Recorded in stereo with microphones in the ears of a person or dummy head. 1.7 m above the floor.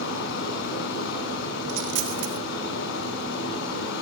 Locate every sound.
0.0 s running water: 70° left (ahead or behind), 7 m
1.7 s a dropped coin: 65° right (ahead or behind), 2.5 m